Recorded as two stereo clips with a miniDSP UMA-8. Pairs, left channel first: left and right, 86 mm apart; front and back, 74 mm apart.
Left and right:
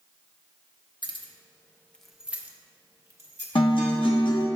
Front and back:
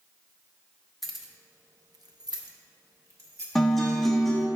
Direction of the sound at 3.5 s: 85° left.